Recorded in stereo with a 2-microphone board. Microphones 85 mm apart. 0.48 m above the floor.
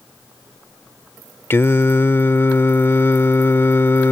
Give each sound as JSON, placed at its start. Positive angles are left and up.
{"t": 1.5, "sound": "singing", "side_deg": 25}